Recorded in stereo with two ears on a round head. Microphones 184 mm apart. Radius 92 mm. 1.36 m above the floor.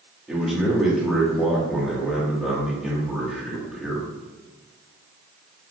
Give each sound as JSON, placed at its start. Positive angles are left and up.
{"t": 0.3, "sound": "a man speaking", "side_deg": 0, "distance_m": 2.0}